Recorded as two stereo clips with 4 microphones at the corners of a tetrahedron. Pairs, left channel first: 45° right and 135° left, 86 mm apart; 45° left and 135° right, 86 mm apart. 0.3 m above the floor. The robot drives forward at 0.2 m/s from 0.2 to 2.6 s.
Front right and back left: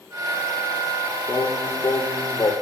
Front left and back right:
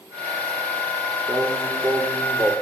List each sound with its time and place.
1.3 s singing: 85° right, 3 m; by 2.5 s 90° right, 3 m